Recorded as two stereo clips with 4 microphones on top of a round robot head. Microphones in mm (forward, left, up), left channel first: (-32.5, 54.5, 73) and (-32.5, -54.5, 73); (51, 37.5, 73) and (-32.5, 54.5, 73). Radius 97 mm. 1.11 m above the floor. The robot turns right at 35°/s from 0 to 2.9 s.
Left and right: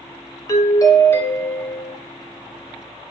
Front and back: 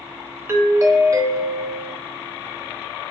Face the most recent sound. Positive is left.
turn(degrees=-150)